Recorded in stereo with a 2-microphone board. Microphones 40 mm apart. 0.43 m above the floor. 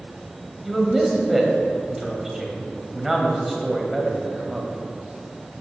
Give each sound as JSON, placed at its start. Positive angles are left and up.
{"t": 0.6, "sound": "a man speaking", "side_deg": -10, "distance_m": 3.0}